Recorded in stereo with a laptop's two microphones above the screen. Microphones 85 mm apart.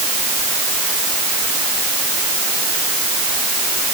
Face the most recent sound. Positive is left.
No sound to turn to.